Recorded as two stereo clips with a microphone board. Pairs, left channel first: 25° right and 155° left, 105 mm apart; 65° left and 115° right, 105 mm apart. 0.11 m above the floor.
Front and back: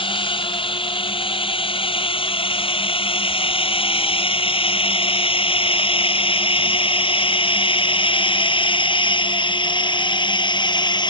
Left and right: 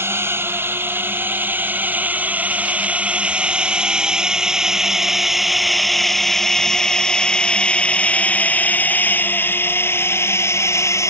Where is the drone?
50° right; by 11.1 s 10° left.